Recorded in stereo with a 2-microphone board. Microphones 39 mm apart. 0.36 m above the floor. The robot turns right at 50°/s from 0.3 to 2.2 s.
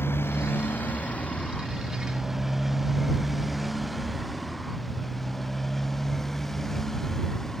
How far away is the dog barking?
No dog barking in this recording.